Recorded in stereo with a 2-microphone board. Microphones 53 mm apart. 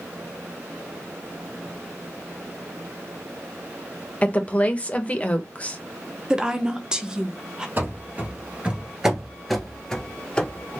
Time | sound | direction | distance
4.2 | a woman speaking | 25° left (ahead or behind) | 0.8 m
6.3 | a woman speaking | 15° right (ahead or behind) | 0.7 m
7.8 | running footsteps | 40° right (ahead or behind) | 1.3 m